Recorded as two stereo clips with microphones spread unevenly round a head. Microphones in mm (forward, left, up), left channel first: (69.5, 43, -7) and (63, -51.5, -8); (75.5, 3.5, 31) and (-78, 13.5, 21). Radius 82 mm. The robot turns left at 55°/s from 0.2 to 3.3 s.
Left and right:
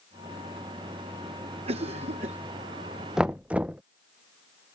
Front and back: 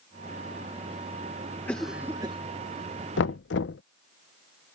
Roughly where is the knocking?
Ahead.